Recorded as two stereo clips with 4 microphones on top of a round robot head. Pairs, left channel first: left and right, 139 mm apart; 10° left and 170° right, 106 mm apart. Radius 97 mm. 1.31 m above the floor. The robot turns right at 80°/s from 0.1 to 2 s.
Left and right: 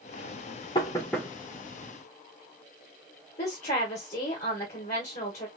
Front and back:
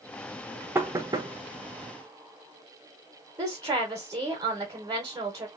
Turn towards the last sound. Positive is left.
turn(degrees=140)